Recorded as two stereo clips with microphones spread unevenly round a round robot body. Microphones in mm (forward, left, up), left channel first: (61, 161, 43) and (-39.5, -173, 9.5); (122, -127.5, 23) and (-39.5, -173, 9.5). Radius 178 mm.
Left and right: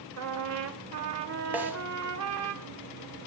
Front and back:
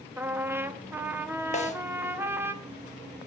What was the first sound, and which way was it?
A trumpet, 95° right.